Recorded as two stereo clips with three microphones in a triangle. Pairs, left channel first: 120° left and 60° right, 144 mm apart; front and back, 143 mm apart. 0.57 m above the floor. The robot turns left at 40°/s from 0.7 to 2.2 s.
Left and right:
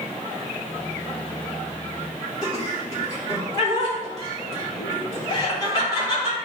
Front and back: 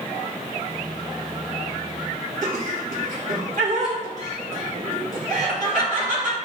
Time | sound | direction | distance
2.4 | laughter | straight behind | 2.5 m